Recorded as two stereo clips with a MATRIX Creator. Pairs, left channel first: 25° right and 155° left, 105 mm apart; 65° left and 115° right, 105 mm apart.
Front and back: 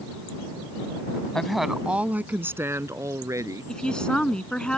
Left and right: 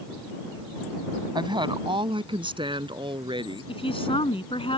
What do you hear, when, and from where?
1.4 s a woman speaking: 105° right; by 3.7 s 145° right
3.7 s a woman speaking: 60° left